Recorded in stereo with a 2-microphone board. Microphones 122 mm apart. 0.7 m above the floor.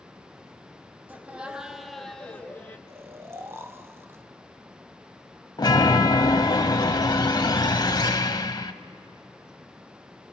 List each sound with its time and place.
1.1 s laughter: 15° right (ahead or behind), 1.3 m; by 2.8 s 20° left (ahead or behind), 1.0 m
2.9 s snoring: 20° right (ahead or behind), 0.7 m
5.6 s a chime: 40° left (ahead or behind), 0.7 m